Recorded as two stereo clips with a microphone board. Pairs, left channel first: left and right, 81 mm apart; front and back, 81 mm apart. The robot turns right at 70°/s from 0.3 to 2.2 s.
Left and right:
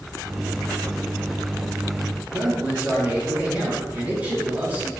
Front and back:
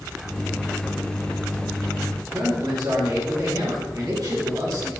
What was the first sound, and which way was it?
A man speaking, 155° right.